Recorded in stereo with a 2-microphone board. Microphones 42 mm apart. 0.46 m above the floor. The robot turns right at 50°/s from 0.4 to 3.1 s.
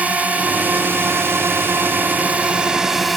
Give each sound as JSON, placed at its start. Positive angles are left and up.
{"t": 0.0, "sound": "a drone", "azimuth_deg": -140}